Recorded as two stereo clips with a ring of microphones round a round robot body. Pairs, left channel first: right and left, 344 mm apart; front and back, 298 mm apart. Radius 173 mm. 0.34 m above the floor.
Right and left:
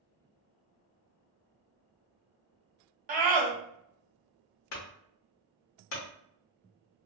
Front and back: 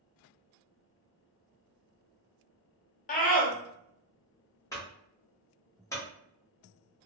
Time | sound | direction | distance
3.1 | a scream | 40° left | 1.0 m
4.7 | a clunk | 75° right | 0.9 m